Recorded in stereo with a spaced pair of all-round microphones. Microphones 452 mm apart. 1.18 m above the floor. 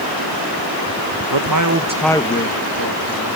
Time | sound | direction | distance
1.3 | a man speaking | 60° right (ahead or behind) | 1.3 m